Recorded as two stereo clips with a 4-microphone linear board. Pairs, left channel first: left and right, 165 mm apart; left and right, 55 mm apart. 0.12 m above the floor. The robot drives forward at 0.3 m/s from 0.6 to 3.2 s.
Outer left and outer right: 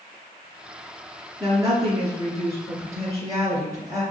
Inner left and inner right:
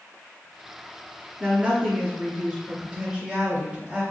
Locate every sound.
1.4 s a woman speaking: 25° right (ahead or behind), 1.7 m; by 4.0 s 20° right (ahead or behind), 1.9 m